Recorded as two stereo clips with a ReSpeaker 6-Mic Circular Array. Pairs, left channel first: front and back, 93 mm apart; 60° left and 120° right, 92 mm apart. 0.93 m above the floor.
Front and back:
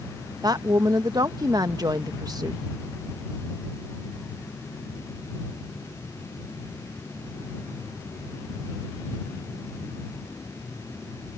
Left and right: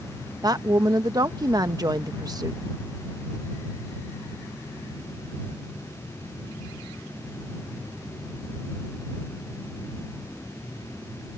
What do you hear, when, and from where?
0.4 s a woman speaking: 155° right